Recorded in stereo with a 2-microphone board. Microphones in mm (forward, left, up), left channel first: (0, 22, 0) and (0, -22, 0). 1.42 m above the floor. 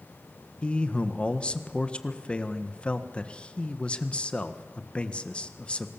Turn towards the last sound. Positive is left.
turn(degrees=25)  # may be behind; listen again after turning